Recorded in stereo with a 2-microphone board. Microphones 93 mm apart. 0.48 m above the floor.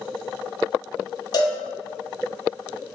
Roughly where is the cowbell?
Left.